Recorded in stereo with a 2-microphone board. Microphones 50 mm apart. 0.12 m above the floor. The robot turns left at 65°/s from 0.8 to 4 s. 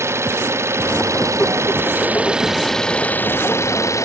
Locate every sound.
0.0 s an engine running: 60° right; by 4.0 s 90° left